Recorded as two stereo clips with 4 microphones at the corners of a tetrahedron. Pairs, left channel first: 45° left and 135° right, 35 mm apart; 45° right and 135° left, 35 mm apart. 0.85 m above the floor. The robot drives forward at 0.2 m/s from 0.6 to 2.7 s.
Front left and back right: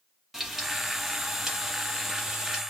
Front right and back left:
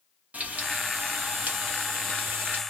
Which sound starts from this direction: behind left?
Frying, at 0.3 s.